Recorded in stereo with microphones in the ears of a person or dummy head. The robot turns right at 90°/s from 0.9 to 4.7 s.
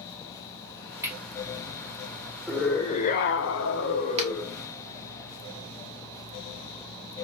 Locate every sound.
1.0 s cutlery clinking: 15° right (ahead or behind), 1.3 m; by 1.2 s 5° right (ahead or behind), 1.3 m
2.5 s a scream: 5° right, 1.2 m; by 4.6 s 175° right, 1.2 m
4.2 s a finger snap: 35° right (ahead or behind), 1.4 m; by 4.3 s 25° right (ahead or behind), 1.4 m